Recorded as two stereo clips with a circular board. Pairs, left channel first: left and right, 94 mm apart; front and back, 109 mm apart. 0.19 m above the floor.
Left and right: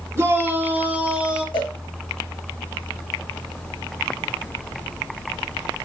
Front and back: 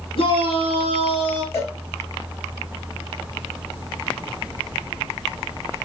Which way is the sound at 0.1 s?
35° right.